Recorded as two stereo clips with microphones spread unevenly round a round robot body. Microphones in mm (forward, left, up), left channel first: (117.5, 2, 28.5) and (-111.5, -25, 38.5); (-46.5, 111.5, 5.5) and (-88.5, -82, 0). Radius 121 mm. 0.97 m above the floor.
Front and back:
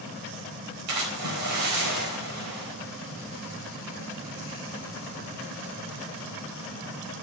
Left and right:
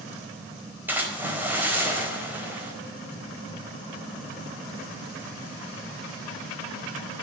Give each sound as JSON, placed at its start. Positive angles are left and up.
{"t": 0.9, "sound": "a splash", "azimuth_deg": 175, "distance_m": 4.0}